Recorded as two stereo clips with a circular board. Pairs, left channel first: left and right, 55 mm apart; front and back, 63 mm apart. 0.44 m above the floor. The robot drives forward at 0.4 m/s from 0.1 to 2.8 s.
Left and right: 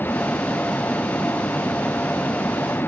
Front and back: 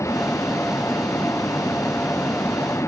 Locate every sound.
0.0 s a vehicle: 40° left